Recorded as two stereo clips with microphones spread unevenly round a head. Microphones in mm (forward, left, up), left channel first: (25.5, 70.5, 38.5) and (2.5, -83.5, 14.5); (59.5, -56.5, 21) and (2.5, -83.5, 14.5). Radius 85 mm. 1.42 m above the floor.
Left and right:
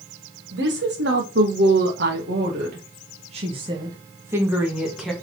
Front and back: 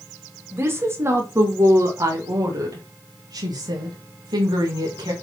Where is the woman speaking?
105° right, 2.5 m; by 5.1 s 170° left, 2 m.